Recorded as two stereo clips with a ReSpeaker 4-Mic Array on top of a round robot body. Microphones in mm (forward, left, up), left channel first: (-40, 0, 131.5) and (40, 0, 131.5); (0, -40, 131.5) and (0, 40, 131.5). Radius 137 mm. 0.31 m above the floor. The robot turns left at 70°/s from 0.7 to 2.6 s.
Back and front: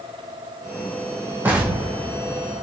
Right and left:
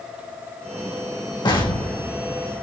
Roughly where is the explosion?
Ahead right.